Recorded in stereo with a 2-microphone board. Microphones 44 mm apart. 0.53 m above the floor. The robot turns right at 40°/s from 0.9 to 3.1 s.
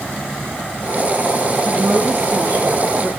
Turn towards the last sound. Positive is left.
turn(degrees=-60)